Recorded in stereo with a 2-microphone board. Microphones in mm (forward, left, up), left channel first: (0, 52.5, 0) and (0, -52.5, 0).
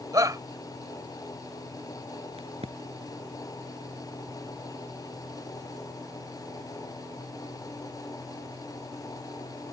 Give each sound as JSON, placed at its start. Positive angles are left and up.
{"t": 0.1, "sound": "a shout", "side_deg": -35}
{"t": 2.4, "sound": "a crack", "side_deg": -70}